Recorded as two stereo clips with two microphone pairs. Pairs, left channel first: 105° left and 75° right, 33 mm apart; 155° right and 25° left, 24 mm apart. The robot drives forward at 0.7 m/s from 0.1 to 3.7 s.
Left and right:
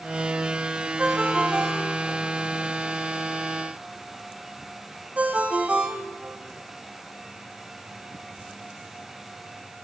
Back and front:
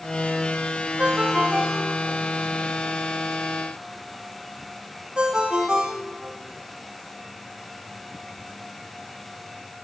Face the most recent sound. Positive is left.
turn(degrees=-25)